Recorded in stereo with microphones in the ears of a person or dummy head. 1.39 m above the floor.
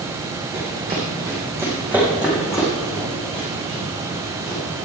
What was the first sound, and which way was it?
Running footsteps, 30° right (ahead or behind).